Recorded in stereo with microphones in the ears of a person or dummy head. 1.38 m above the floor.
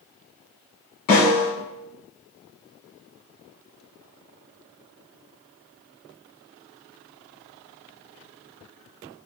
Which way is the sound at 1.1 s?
50° left (ahead or behind).